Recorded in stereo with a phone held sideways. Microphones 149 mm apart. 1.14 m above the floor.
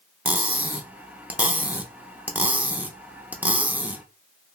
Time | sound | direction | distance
0.2 | cutlery clinking | 10° right (ahead or behind) | 0.5 m